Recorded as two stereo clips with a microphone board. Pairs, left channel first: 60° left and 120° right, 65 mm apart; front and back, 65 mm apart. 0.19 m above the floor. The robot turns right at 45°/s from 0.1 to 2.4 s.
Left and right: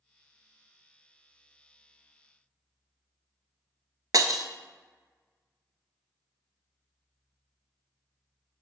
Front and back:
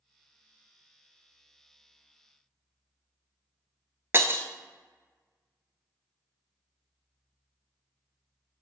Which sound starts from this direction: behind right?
Breaking glass, at 4.1 s.